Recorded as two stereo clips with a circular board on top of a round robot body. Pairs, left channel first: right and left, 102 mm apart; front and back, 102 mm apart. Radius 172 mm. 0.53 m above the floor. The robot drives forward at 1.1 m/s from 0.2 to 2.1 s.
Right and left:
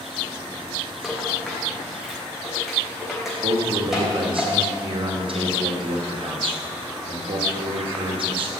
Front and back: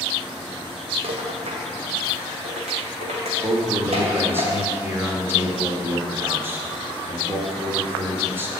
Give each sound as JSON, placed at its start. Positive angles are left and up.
{"t": 1.0, "sound": "a rattle", "azimuth_deg": 175, "distance_m": 2.0}
{"t": 3.4, "sound": "a man speaking", "azimuth_deg": 115, "distance_m": 2.0}